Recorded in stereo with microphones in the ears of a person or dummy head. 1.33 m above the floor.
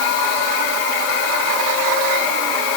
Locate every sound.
Only background noise.